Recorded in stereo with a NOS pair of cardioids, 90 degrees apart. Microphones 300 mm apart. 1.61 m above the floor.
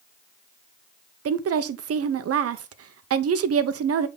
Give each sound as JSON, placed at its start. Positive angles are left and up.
{"t": 1.2, "sound": "a woman speaking", "azimuth_deg": -50, "distance_m": 0.9}